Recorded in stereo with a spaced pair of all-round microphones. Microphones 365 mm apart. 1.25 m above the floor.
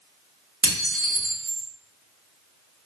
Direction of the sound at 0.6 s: 40° right (ahead or behind).